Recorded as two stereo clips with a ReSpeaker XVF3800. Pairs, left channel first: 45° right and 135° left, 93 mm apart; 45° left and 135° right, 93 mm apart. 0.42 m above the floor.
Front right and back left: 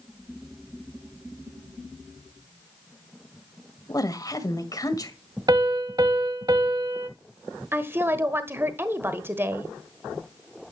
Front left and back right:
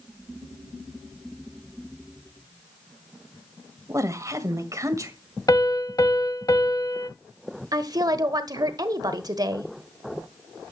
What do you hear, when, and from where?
3.9 s a woman speaking: 85° right, 1.8 m
5.5 s a piano: 95° left, 1.1 m
7.7 s a woman speaking: 165° right, 1.3 m